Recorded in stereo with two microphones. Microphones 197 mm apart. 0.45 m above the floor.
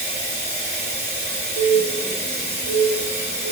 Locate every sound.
0.0 s running water: 50° right (ahead or behind), 2 m
1.6 s a bird: 70° right (ahead or behind), 1.1 m